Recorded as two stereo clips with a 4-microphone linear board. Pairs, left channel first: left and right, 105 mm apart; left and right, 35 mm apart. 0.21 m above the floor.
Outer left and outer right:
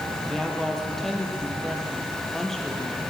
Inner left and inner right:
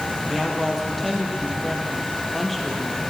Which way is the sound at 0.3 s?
5° left (ahead or behind).